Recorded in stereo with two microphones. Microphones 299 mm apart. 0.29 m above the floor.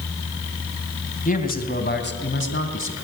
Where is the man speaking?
25° left (ahead or behind), 2.5 m; by 3.0 s 45° left (ahead or behind), 3 m.